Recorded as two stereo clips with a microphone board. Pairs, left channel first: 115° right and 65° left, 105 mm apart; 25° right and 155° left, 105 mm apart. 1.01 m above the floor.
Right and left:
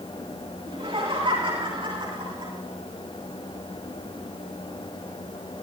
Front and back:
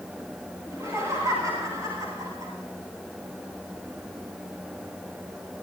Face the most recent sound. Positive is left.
turn(degrees=105)